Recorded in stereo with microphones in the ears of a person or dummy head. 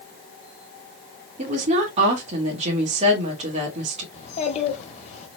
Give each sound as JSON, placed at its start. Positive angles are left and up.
{"t": 1.4, "sound": "a woman speaking", "side_deg": -40, "distance_m": 2.0}
{"t": 4.1, "sound": "a child speaking", "side_deg": 45, "distance_m": 1.8}